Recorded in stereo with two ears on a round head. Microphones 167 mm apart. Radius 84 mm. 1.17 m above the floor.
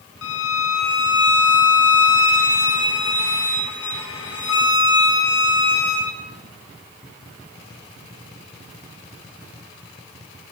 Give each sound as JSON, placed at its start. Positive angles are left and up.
{"t": 0.2, "sound": "a violin", "side_deg": 75, "distance_m": 1.7}